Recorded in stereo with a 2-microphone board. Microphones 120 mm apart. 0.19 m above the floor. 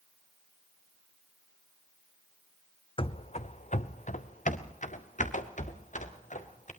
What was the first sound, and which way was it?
Running footsteps, 50° left (ahead or behind).